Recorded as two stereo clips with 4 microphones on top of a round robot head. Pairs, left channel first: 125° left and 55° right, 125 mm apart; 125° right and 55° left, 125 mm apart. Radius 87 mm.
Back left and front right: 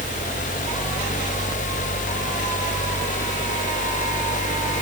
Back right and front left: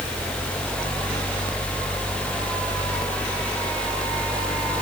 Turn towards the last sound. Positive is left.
No sound to turn to.